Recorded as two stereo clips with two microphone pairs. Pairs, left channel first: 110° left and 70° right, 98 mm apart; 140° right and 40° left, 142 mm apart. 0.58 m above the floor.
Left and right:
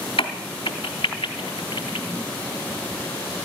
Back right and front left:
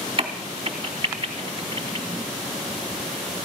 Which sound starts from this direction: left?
A crack, at 0.2 s.